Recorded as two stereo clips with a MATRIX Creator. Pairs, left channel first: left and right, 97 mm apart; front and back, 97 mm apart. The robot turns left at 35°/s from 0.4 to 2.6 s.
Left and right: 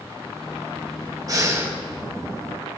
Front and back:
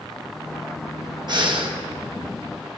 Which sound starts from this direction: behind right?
Breathing, at 1.3 s.